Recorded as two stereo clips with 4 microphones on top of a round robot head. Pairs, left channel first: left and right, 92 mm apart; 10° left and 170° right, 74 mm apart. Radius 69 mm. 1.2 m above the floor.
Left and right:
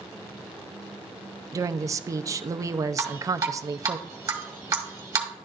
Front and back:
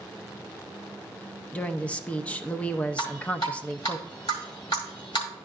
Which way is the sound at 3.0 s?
40° right.